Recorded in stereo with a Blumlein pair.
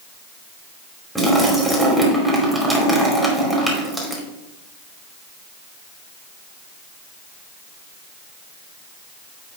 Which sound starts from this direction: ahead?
A splash, at 1.1 s.